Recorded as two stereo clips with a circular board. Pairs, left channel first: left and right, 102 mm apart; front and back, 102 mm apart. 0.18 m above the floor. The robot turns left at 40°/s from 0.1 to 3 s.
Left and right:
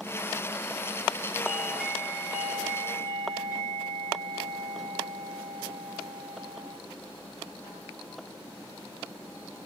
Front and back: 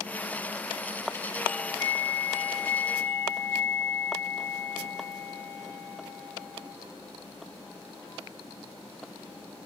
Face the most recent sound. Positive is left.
turn(degrees=-65)